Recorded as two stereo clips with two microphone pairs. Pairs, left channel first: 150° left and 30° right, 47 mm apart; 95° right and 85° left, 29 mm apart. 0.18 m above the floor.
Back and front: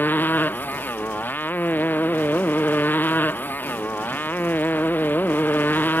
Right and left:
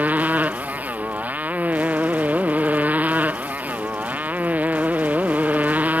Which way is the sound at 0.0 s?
100° left.